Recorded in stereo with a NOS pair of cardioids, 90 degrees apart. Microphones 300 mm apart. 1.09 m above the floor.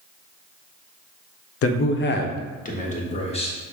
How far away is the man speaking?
About 0.6 m.